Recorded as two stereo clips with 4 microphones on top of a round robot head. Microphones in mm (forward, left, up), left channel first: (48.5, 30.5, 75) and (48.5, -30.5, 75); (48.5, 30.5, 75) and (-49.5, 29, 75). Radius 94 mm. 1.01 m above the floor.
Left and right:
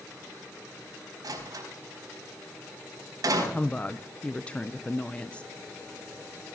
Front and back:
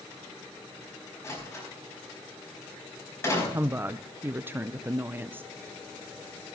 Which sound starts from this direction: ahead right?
A door slam, at 1.2 s.